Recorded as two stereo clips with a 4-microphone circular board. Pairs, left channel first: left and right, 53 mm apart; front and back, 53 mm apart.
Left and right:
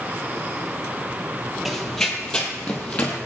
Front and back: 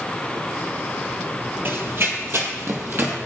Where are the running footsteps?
175° left, 1.7 m; by 3.2 s 150° left, 2.5 m.